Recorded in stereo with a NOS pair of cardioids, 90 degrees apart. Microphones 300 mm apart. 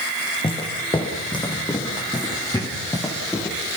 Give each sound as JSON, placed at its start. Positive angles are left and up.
{"t": 0.4, "sound": "footsteps", "azimuth_deg": 15, "distance_m": 8.0}